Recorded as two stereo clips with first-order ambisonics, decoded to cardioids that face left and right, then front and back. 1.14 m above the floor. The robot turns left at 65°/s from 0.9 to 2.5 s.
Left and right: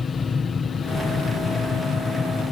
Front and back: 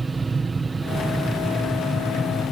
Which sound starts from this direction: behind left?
An aircraft, at 0.0 s.